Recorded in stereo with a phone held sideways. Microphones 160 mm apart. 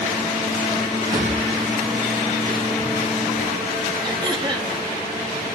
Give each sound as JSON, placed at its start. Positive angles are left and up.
{"t": 1.1, "sound": "a drawer", "side_deg": -25, "distance_m": 2.5}
{"t": 4.0, "sound": "throat clearing", "side_deg": -30, "distance_m": 1.0}